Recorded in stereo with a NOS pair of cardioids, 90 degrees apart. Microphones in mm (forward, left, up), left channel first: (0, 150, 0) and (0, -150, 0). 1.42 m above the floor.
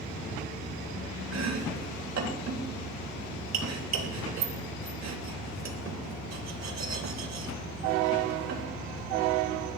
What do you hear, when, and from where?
1.3 s chopping: 60° right, 3.5 m